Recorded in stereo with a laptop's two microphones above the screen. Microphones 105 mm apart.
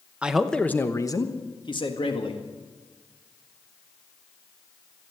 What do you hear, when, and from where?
0.2 s a man speaking: 10° right (ahead or behind), 0.8 m; by 2.4 s 60° left (ahead or behind), 1.9 m